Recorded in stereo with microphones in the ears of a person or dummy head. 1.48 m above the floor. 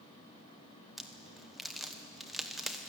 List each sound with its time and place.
1.0 s a crack: centre (ahead or behind), 1.2 m